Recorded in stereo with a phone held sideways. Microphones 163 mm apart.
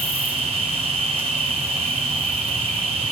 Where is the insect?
35° right (ahead or behind), 1.5 m.